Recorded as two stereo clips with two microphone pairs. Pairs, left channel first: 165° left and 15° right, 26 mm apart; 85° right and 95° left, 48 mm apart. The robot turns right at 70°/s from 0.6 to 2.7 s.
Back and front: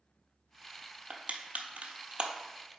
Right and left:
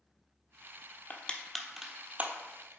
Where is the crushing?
45° right, 0.8 m; by 2.8 s 70° left, 0.8 m.